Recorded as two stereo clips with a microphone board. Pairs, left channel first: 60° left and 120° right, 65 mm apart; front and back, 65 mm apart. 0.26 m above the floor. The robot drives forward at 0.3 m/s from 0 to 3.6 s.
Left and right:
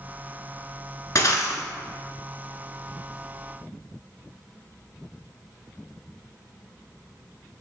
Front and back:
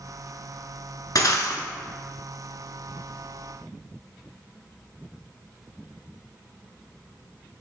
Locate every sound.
1.1 s breaking glass: 25° left, 0.7 m; by 1.6 s 30° left, 0.6 m